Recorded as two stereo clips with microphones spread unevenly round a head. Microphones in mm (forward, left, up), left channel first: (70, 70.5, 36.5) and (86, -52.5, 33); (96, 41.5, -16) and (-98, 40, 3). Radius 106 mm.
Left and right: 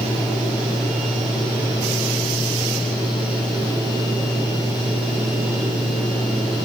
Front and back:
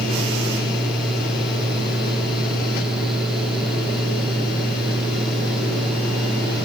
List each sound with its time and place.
Only background noise.